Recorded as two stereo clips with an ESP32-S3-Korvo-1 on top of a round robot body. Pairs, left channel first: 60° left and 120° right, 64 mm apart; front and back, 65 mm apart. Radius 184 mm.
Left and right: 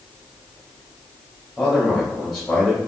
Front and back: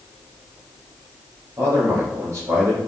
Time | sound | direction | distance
1.6 | a man speaking | 145° left | 2 m